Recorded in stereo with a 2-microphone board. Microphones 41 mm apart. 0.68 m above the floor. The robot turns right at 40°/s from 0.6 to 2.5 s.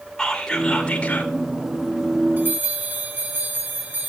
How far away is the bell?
About 7 m.